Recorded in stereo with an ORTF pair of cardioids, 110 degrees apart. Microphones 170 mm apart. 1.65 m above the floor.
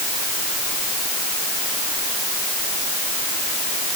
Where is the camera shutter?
No camera shutter in this recording.